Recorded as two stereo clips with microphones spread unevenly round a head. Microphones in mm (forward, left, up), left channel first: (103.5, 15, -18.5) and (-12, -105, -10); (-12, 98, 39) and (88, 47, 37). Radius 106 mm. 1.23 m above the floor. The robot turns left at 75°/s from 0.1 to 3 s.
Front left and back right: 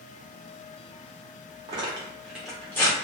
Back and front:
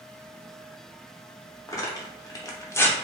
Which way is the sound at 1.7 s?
170° right.